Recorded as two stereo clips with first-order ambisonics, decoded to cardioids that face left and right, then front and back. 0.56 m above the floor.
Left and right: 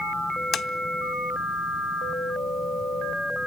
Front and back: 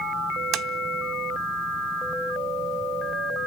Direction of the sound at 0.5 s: 145° left.